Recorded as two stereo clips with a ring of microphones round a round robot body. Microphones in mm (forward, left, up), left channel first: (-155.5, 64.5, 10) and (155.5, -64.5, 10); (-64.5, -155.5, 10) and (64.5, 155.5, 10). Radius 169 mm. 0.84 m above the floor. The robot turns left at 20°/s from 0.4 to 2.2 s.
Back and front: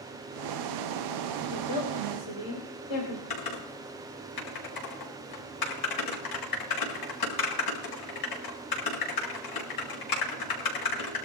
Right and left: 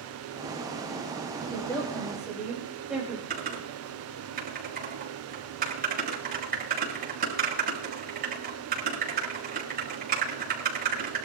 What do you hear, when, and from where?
1.5 s a woman speaking: 170° left, 4 m; by 3.2 s 155° left, 4 m
3.3 s typing on a keyboard: 135° left, 5 m